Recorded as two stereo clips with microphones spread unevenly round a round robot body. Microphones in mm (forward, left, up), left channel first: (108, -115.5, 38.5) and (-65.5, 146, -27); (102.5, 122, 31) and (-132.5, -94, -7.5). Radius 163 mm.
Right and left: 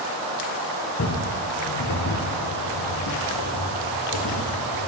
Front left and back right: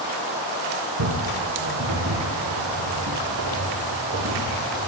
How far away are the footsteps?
About 3.5 m.